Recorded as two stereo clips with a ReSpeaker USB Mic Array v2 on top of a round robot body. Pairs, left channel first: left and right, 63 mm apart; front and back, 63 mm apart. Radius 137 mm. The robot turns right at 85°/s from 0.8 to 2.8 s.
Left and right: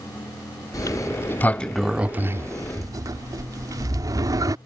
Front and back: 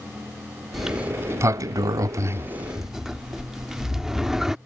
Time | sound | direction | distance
0.7 | a sliding door | 95° left | ?